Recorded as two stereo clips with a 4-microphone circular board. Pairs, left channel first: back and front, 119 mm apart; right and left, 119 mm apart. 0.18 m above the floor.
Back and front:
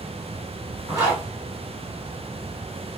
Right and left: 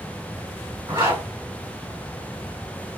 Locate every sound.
0.9 s a zipper: 45° left, 2.0 m